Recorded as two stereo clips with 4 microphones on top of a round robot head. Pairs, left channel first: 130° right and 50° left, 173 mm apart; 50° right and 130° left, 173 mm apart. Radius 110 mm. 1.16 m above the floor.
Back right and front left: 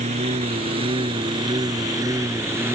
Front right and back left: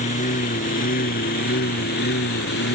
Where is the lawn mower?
Straight ahead; by 2.8 s 25° right.